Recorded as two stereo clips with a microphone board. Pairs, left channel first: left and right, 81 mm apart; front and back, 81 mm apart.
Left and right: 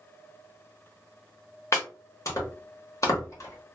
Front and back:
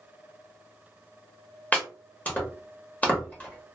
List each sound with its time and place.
1.7 s chopping: 65° left, 1.0 m